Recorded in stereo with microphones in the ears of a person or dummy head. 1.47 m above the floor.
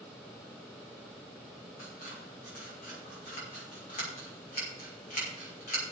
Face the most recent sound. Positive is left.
turn(degrees=45)  # may be behind; listen again after turning